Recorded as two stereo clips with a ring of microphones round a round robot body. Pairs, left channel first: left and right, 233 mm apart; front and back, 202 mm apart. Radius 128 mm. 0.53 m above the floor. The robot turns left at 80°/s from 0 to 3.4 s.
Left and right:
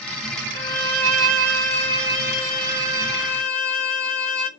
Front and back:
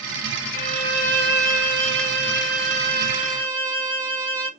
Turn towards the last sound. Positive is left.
turn(degrees=80)